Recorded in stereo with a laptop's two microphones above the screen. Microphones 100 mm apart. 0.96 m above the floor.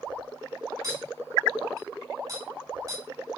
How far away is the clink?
About 3 m.